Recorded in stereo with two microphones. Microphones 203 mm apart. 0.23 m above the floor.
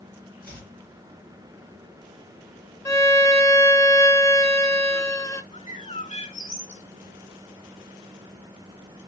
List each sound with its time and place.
0.4 s chopping: 50° left (ahead or behind), 3.5 m
2.9 s a violin: 15° left (ahead or behind), 0.6 m
5.5 s a bird: 30° left (ahead or behind), 0.8 m